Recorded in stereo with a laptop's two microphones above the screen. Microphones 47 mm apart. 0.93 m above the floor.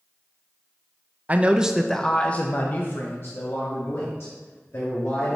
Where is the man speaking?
35° right (ahead or behind), 0.5 m; by 5.4 s 55° left (ahead or behind), 2 m.